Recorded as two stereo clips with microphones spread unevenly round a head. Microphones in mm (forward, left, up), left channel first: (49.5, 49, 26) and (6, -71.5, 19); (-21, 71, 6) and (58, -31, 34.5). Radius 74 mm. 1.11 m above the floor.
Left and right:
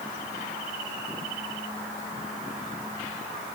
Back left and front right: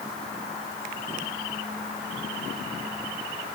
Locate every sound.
Only background noise.